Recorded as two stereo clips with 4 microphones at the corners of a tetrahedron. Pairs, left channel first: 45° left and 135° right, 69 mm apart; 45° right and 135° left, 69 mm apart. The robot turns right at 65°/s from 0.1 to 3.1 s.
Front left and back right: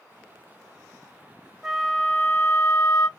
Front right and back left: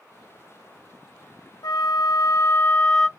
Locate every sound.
1.6 s a flute: 50° right, 0.7 m; by 3.1 s 45° left, 0.7 m